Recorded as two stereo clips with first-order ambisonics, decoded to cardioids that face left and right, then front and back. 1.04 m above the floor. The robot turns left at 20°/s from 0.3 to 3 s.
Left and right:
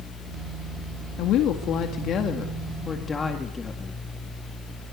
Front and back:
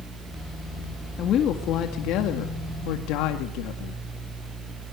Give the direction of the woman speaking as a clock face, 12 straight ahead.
10 o'clock.